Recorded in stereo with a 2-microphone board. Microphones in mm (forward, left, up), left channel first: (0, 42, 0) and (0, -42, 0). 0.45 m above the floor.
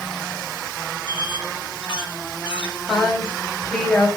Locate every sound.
1.1 s a squeak: 70° left (ahead or behind), 1.3 m
2.9 s a woman speaking: 10° left (ahead or behind), 2.5 m